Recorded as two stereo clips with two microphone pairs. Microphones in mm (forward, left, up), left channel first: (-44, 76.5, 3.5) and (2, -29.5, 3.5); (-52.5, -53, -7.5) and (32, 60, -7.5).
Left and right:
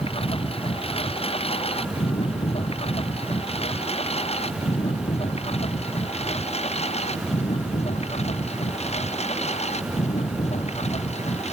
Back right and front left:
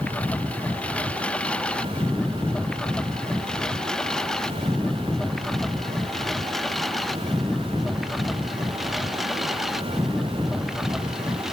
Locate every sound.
0.0 s a lawn mower: 150° left; by 11.5 s 140° left